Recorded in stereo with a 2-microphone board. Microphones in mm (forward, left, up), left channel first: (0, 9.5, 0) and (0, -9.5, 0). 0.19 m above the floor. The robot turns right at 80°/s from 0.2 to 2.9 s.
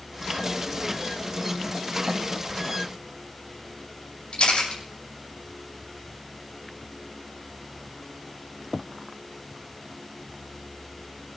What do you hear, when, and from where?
4.3 s a camera shutter: 70° left (ahead or behind), 7.5 m